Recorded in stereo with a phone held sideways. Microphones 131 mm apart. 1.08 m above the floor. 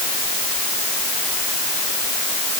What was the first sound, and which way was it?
Only background noise.